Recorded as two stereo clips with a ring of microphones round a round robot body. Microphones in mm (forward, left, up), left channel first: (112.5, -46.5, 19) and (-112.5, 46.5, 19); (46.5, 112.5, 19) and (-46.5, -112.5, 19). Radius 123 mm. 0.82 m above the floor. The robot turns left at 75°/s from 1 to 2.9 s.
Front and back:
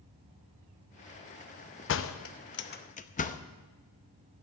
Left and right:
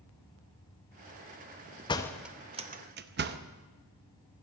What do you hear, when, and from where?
1.9 s a door slam: straight ahead, 0.7 m; by 3.4 s 75° right, 0.7 m